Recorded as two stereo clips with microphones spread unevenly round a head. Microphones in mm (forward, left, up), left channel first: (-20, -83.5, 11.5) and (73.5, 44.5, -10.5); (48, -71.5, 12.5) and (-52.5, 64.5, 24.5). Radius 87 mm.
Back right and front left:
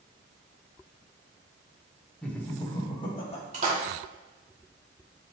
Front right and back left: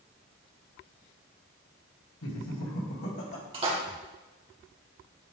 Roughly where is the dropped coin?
I don't hear a dropped coin.